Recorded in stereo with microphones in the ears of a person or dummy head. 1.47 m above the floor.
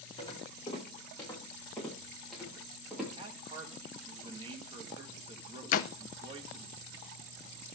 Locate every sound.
0.2 s footsteps: 25° left (ahead or behind), 5 m; by 3.1 s 5° right (ahead or behind), 7 m
3.2 s a man speaking: 30° right (ahead or behind), 2.0 m
5.7 s a door slam: 45° left (ahead or behind), 0.6 m